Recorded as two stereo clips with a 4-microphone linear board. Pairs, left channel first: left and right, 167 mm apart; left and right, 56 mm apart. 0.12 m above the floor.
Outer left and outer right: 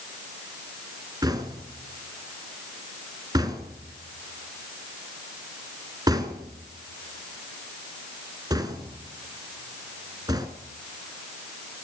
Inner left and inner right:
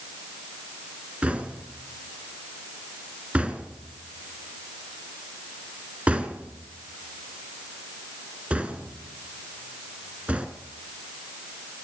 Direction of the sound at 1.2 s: 25° right (ahead or behind).